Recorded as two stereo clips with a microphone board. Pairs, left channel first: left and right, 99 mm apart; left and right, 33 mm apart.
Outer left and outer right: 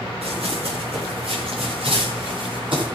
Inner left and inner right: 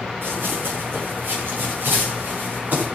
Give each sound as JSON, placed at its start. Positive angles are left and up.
{"t": 0.2, "sound": "running footsteps", "side_deg": -85, "distance_m": 8.5}